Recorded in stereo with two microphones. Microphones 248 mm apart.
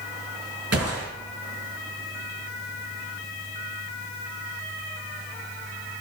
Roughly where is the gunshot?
Right.